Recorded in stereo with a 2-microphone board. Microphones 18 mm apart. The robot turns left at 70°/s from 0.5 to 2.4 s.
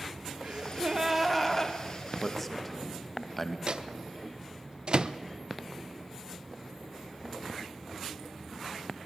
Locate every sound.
0.4 s a gasp: 120° right, 2.5 m; by 1.8 s 150° left, 2.5 m
2.2 s a man speaking: 20° left (ahead or behind), 2.5 m; by 3.6 s 5° left (ahead or behind), 2.5 m
3.7 s a microwave: 50° right (ahead or behind), 0.9 m